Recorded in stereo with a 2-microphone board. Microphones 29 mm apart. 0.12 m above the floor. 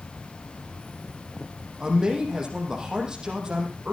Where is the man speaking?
25° right (ahead or behind), 5.5 m.